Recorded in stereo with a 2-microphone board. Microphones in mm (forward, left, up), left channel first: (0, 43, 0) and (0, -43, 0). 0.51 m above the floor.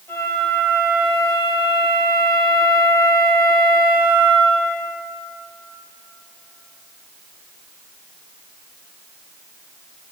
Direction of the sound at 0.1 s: 25° left (ahead or behind).